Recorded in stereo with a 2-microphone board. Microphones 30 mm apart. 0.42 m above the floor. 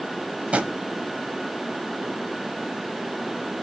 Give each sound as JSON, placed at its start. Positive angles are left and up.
{"t": 0.5, "sound": "a drawer", "side_deg": -40, "distance_m": 1.0}